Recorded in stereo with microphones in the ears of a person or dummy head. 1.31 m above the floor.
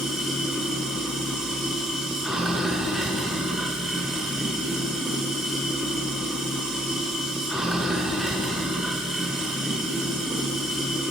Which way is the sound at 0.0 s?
Centre (ahead or behind).